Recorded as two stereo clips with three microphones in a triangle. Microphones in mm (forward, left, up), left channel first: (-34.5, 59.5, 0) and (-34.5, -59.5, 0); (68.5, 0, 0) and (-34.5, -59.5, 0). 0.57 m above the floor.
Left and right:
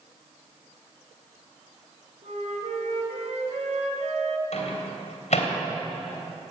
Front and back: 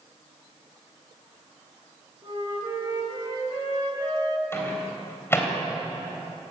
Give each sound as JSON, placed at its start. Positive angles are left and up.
{"t": 2.2, "sound": "a flute", "azimuth_deg": -100, "distance_m": 2.5}
{"t": 4.5, "sound": "a microwave", "azimuth_deg": 100, "distance_m": 3.0}